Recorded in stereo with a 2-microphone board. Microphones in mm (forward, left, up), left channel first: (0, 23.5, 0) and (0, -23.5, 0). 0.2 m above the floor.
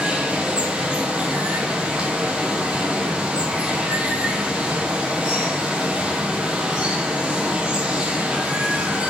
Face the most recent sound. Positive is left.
turn(degrees=-20)  # may be behind; listen again after turning